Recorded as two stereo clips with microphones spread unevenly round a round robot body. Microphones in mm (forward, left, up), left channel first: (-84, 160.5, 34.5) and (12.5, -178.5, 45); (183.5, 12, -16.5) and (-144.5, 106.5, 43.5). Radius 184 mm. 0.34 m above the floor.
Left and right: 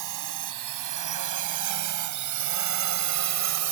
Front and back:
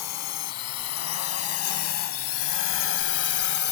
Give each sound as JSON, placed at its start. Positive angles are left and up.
{"t": 0.0, "sound": "a drone", "azimuth_deg": -45}